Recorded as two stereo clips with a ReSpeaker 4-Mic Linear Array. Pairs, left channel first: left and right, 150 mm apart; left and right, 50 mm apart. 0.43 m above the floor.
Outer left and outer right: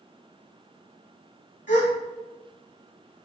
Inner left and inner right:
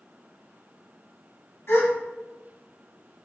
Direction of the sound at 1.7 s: 55° left (ahead or behind).